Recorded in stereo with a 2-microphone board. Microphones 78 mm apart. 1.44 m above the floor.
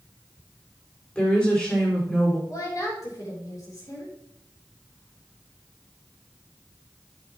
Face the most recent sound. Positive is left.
turn(degrees=50)  # may be behind; listen again after turning